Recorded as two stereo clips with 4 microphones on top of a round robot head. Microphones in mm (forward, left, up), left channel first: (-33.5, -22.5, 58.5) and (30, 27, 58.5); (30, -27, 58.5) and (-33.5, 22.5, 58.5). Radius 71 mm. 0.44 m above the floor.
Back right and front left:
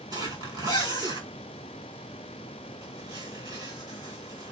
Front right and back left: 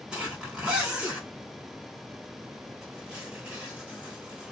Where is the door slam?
I don't hear a door slam.